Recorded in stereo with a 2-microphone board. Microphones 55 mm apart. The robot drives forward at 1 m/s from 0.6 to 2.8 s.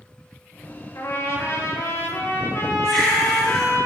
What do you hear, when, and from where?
0.9 s a trumpet: 70° left (ahead or behind), 3 m; by 3.8 s 55° left (ahead or behind), 3 m
2.8 s a baby crying: 10° left (ahead or behind), 4.5 m